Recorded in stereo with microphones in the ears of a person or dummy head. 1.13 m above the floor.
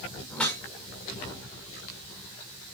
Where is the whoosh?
10° left (ahead or behind), 3 m.